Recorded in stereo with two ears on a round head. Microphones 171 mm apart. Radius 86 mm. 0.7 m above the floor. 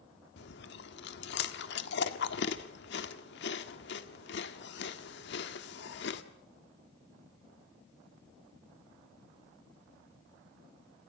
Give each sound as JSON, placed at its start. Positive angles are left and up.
{"t": 0.4, "sound": "chewing", "side_deg": 60, "distance_m": 1.6}